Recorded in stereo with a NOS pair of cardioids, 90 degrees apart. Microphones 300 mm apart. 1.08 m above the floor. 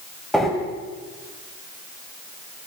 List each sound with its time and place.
0.3 s breathing: straight ahead, 7 m